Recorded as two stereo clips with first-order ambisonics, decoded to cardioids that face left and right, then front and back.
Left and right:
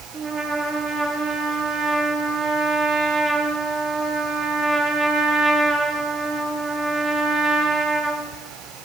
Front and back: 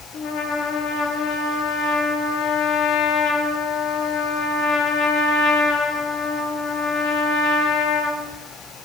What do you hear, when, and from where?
0.1 s a trumpet: 30° right, 0.7 m